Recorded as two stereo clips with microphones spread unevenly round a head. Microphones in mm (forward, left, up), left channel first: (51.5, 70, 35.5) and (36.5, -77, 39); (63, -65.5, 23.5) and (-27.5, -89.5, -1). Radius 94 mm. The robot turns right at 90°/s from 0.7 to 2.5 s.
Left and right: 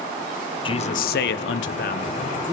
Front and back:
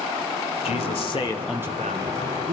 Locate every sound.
0.7 s a man speaking: 25° left, 0.8 m; by 2.5 s 170° right, 0.8 m